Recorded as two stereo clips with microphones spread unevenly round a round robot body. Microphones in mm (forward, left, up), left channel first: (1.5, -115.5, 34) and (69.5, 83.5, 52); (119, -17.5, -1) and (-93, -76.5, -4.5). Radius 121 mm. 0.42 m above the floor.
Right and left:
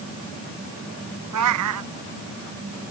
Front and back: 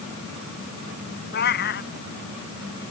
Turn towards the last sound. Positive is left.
turn(degrees=70)